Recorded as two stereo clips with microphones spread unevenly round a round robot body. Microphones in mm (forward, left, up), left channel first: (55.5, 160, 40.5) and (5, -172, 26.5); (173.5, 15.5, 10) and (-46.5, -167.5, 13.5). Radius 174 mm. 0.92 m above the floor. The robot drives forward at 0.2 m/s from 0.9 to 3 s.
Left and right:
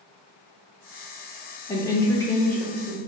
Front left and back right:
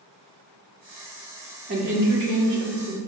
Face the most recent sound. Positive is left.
turn(degrees=170)